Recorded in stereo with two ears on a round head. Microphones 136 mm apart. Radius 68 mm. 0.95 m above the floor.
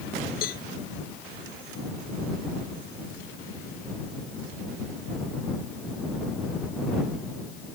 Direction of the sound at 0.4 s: 65° left (ahead or behind).